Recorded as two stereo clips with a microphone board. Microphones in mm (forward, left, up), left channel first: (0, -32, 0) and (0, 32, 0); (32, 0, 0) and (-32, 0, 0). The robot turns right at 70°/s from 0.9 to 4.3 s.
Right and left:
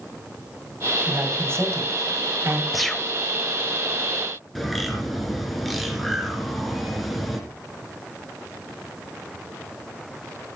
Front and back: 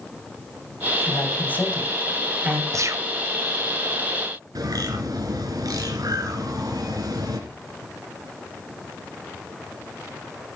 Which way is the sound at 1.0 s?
20° left.